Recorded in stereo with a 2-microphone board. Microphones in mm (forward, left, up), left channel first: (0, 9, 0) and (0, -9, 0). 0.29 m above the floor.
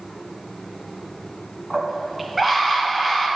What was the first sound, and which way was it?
A scream, 10° right (ahead or behind).